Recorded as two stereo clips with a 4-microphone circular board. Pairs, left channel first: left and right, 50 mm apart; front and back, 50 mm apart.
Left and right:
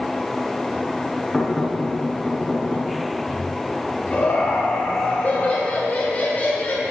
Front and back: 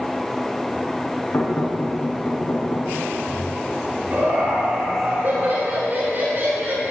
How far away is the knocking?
About 4 m.